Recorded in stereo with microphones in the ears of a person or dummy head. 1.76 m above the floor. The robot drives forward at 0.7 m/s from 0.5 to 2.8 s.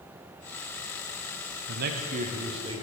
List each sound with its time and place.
1.7 s a man speaking: 60° right (ahead or behind), 0.7 m; by 2.8 s 25° right (ahead or behind), 1.3 m